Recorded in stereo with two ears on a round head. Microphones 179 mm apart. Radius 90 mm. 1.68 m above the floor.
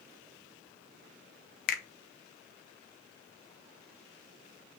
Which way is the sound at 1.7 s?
50° left (ahead or behind).